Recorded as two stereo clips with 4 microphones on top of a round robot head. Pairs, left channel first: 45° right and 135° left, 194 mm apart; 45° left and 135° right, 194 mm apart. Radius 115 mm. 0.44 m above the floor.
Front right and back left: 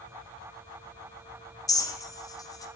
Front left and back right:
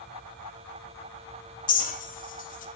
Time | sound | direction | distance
1.7 | a clink | 20° left | 0.9 m